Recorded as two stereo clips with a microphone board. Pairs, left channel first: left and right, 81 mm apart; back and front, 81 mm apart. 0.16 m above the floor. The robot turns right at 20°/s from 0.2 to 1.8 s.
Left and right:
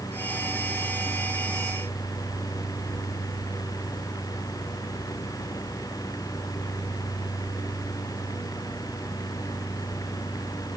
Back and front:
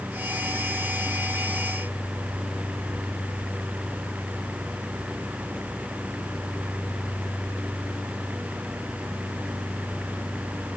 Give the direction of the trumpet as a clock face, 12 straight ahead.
I don't hear a trumpet.